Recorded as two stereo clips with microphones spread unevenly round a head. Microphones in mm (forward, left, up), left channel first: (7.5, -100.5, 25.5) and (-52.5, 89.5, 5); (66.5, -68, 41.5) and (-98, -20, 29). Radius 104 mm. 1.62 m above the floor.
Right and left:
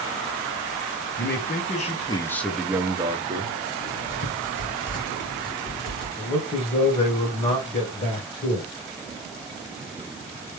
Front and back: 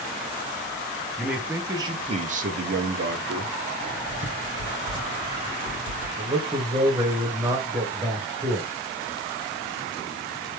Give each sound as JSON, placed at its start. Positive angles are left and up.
{"t": 1.2, "sound": "a man speaking", "azimuth_deg": -110, "distance_m": 0.9}
{"t": 3.8, "sound": "writing", "azimuth_deg": -40, "distance_m": 2.0}
{"t": 6.2, "sound": "a man speaking", "azimuth_deg": -125, "distance_m": 1.3}